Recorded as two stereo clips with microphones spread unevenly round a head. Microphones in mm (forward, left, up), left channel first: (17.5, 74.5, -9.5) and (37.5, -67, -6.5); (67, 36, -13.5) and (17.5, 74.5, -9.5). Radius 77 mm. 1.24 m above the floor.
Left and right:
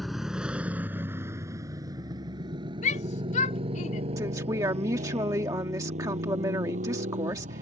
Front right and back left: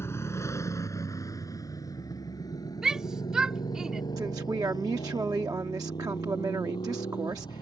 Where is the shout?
65° left.